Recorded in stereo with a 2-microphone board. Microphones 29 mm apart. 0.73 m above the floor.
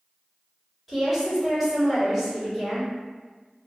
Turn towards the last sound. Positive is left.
turn(degrees=0)  # may be behind; listen again after turning